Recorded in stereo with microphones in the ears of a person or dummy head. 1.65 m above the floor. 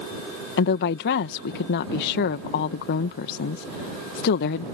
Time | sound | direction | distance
0.6 | a woman speaking | 65° left (ahead or behind) | ?